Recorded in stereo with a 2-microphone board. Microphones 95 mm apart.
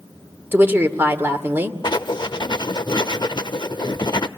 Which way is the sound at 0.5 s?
20° right (ahead or behind).